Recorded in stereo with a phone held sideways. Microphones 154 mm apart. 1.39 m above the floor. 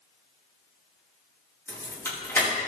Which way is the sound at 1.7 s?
15° left (ahead or behind).